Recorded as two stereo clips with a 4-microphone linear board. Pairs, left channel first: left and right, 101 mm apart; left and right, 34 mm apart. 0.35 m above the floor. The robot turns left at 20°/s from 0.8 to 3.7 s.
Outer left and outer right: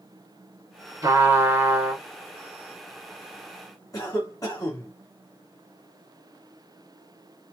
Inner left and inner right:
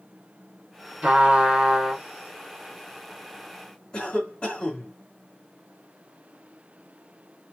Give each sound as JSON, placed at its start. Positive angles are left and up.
{"t": 1.0, "sound": "a trumpet", "side_deg": -30, "distance_m": 1.7}
{"t": 3.9, "sound": "a cough", "side_deg": 35, "distance_m": 2.0}